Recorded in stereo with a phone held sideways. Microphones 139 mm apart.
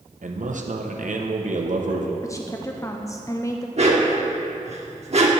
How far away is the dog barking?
About 1.2 m.